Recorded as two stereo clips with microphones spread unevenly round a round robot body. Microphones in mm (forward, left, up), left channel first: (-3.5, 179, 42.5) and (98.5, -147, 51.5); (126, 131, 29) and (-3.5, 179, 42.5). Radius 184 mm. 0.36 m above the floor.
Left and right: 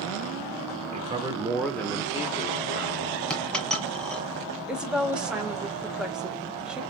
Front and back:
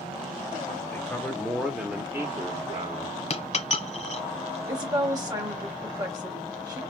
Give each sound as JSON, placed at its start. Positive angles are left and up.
{"t": 0.9, "sound": "a man speaking", "azimuth_deg": -30, "distance_m": 1.0}
{"t": 3.3, "sound": "a dropped coin", "azimuth_deg": 20, "distance_m": 1.2}
{"t": 4.7, "sound": "a woman speaking", "azimuth_deg": -160, "distance_m": 1.1}